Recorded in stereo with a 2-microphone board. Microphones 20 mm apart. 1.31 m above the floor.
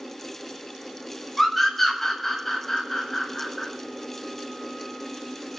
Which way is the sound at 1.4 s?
Centre (ahead or behind).